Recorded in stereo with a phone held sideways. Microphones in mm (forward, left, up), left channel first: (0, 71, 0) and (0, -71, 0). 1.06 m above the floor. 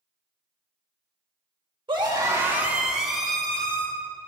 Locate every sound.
1.9 s a scream: 35° right (ahead or behind), 2 m; by 3.9 s 10° left (ahead or behind), 3.5 m